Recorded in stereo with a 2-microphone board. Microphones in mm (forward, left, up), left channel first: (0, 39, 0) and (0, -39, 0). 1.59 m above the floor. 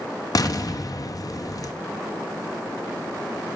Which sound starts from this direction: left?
An explosion, at 0.3 s.